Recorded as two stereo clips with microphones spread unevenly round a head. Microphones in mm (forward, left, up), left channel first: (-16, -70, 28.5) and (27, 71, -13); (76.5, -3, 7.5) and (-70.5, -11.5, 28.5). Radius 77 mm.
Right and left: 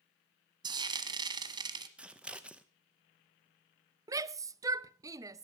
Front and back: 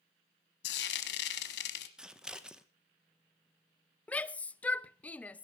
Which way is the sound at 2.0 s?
85° left.